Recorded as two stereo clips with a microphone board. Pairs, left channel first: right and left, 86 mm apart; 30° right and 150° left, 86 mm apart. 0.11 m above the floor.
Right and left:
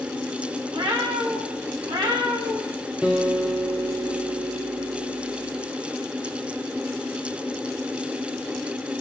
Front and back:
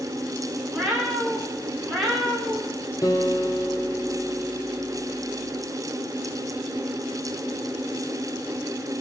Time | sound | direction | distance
0.7 | a cat meowing | 70° left | 7 m
3.0 | a guitar | 15° left | 2 m